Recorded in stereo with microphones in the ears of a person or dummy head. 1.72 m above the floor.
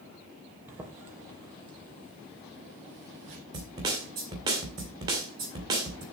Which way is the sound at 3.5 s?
30° right (ahead or behind).